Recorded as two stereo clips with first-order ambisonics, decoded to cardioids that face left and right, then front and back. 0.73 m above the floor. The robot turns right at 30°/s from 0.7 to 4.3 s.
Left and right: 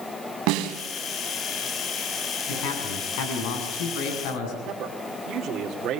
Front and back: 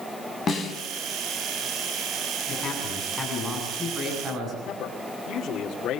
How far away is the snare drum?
About 3.5 m.